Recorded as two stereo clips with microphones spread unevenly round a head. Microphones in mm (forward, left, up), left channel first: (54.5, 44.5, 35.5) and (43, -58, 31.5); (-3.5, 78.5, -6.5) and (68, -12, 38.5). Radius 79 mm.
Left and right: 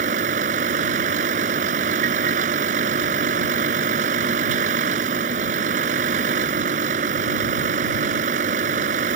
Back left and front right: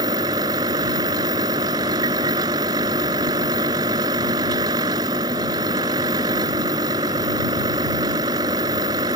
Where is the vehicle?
115° right.